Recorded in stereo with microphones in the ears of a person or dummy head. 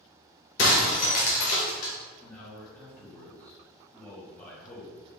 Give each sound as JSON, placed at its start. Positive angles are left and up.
{"t": 0.6, "sound": "breaking glass", "side_deg": 55, "distance_m": 0.9}
{"t": 2.2, "sound": "a man speaking", "side_deg": 20, "distance_m": 1.4}